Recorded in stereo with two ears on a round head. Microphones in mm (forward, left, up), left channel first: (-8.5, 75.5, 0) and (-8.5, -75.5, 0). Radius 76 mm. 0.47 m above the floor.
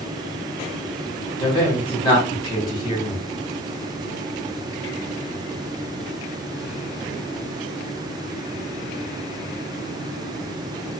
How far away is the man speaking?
About 1.6 m.